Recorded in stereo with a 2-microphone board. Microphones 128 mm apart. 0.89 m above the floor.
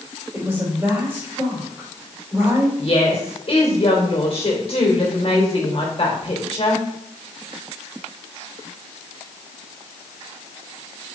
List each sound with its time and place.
0.3 s a woman speaking: 20° right (ahead or behind), 4.5 m
2.8 s a woman speaking: 50° left (ahead or behind), 3 m